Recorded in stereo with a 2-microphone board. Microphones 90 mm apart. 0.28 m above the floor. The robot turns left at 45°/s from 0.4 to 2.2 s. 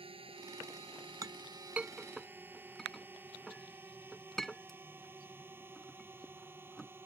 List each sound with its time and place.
0.0 s a drone: 70° right (ahead or behind); by 7.0 s 25° right (ahead or behind)
1.2 s a clink: 40° right (ahead or behind); by 6.9 s 5° left (ahead or behind)